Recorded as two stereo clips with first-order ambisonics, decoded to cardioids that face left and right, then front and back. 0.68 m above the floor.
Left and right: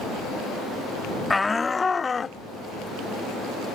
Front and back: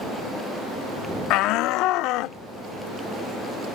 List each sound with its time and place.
1.3 s a shout: 10° left; by 2.4 s 20° left